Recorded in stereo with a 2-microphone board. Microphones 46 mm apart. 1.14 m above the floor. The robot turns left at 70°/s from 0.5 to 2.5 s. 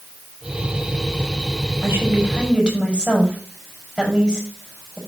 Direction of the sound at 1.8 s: 70° right (ahead or behind).